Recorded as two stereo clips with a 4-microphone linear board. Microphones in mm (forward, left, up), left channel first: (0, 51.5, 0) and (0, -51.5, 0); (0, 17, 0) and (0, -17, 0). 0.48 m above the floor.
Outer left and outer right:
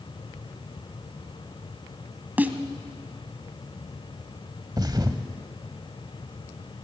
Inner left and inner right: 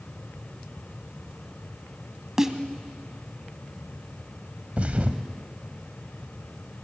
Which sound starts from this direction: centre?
A snare drum, at 2.4 s.